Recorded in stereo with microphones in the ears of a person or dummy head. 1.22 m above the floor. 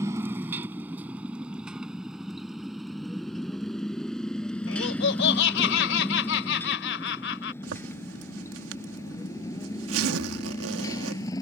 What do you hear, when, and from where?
0.0 s a motorcycle: 20° right (ahead or behind); by 11.4 s 20° left (ahead or behind)
4.7 s laughter: 70° left (ahead or behind)
7.6 s a zipper: 80° right